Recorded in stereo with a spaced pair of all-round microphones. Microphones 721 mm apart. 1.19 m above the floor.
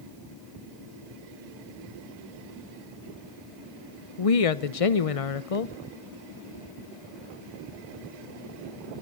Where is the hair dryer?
No hair dryer in this recording.